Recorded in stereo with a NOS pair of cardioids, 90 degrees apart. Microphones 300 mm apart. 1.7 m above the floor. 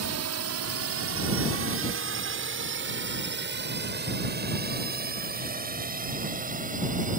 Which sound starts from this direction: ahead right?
A drone, at 0.0 s.